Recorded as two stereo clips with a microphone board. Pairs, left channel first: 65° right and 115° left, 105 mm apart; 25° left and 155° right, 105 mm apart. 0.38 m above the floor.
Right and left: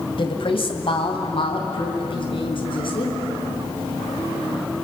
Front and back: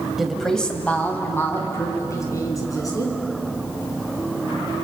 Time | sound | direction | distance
0.2 | a woman speaking | 70° right | 2.5 m